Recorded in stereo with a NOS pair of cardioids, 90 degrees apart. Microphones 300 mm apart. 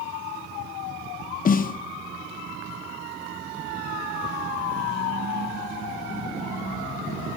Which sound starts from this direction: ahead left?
A snare drum, at 1.4 s.